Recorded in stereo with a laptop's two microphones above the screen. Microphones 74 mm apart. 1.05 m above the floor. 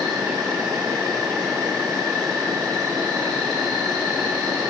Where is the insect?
70° right (ahead or behind), 1.4 m.